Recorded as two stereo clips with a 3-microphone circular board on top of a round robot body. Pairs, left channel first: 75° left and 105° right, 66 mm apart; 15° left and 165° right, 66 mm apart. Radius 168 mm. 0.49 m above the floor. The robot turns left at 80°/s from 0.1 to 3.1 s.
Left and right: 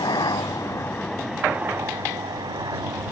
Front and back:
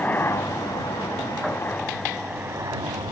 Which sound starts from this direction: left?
A helicopter, at 0.0 s.